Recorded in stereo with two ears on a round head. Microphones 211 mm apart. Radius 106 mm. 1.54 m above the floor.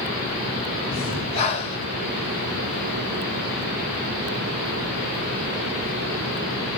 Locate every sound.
0.9 s breathing: 25° left (ahead or behind), 0.9 m